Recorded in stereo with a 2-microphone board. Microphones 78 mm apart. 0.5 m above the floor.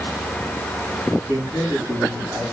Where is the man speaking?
35° right (ahead or behind), 5 m; by 2.4 s 30° right (ahead or behind), 5 m.